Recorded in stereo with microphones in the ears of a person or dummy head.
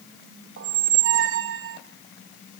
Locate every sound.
0.6 s a squeak: 60° right (ahead or behind), 0.7 m